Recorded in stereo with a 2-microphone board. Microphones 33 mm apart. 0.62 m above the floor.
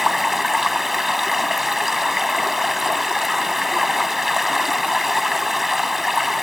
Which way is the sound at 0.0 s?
5° right (ahead or behind).